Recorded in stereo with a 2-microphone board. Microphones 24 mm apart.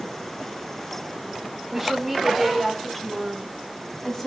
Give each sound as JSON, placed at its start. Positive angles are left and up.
{"t": 1.7, "sound": "a woman speaking", "side_deg": 0, "distance_m": 4.5}